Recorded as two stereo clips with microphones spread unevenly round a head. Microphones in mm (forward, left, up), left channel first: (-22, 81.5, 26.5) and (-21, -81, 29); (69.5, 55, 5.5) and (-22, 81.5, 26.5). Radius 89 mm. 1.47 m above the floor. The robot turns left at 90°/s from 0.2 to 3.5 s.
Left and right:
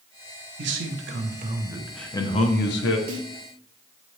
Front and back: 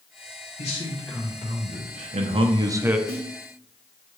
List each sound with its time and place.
0.6 s a man speaking: 60° right, 0.9 m; by 3.0 s 85° left, 0.9 m
3.1 s a snare drum: 70° right, 1.8 m; by 3.3 s 90° right, 1.8 m